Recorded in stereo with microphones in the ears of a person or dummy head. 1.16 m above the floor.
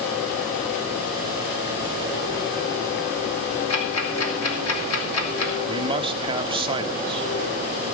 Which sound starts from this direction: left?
Ticking, at 3.7 s.